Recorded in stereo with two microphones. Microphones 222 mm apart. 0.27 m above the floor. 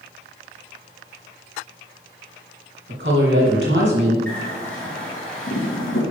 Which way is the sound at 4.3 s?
75° left (ahead or behind).